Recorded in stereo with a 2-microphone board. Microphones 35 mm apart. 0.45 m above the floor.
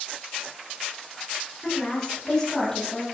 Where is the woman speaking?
10° left (ahead or behind), 8 m.